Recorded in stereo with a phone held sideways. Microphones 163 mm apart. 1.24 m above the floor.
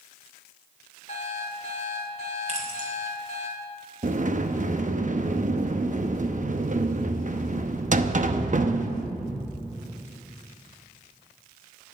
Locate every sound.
1.1 s an alarm clock: 45° left (ahead or behind), 2.5 m
2.5 s keys jangling: 45° right (ahead or behind), 3 m
4.0 s a sliding door: 50° right (ahead or behind), 0.8 m